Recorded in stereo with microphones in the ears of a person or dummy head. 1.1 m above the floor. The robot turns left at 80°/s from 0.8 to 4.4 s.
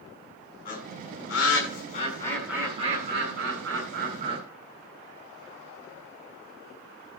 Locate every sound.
0.7 s a bird: 45° left (ahead or behind), 7.5 m; by 4.4 s 30° right (ahead or behind), 7.5 m